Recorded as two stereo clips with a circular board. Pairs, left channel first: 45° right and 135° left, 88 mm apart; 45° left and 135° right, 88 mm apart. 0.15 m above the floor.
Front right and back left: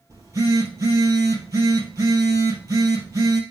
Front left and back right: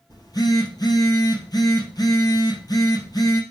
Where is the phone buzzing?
85° left, 2.5 m.